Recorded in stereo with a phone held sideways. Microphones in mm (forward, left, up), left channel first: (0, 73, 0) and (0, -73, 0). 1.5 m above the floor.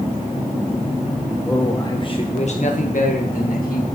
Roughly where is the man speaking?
Centre.